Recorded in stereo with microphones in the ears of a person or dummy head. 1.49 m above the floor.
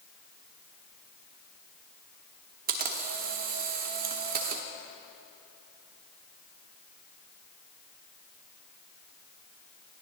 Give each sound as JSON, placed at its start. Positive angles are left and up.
{"t": 2.7, "sound": "a camera shutter", "side_deg": -45, "distance_m": 0.9}